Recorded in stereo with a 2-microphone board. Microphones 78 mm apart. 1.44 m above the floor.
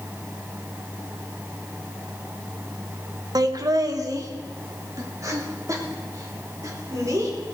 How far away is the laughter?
About 1.2 m.